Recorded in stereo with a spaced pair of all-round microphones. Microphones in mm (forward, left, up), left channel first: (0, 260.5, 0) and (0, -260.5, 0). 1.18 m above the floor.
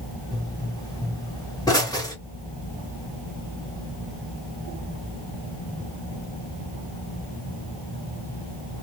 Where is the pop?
5° left (ahead or behind), 1.2 m.